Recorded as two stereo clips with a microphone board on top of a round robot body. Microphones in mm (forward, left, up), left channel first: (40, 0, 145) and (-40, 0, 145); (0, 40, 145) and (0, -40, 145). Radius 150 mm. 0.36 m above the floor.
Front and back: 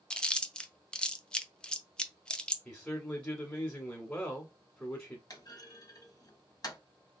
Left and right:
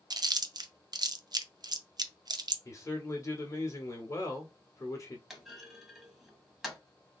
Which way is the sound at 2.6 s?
65° left.